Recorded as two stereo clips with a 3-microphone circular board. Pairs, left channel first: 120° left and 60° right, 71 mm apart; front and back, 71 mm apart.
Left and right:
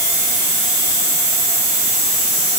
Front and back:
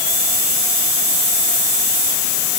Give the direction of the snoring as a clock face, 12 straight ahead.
No snoring in this recording.